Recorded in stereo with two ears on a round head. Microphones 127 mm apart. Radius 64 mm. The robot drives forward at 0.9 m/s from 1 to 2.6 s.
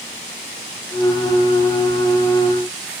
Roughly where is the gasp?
No gasp in this recording.